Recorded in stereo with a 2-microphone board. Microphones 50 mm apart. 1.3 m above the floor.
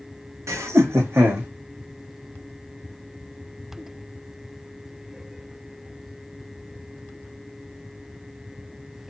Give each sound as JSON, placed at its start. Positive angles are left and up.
{"t": 0.5, "sound": "laughter", "side_deg": -80, "distance_m": 1.3}